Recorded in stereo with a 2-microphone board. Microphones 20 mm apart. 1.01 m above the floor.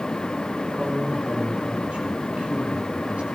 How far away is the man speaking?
About 4 m.